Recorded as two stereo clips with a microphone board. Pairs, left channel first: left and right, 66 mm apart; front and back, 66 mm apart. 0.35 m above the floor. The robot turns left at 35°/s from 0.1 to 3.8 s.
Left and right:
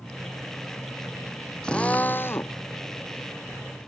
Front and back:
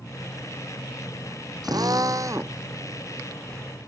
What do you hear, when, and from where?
1.6 s a drill: 165° left; by 2.6 s 135° left